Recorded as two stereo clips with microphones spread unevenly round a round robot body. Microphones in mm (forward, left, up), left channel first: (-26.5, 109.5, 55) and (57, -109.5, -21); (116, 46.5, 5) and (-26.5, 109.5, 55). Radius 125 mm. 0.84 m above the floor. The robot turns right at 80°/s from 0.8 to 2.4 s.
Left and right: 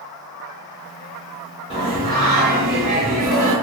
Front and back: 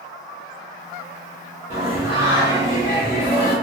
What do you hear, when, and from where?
1.7 s singing: 115° right, 1.5 m; by 3.5 s 60° right, 1.5 m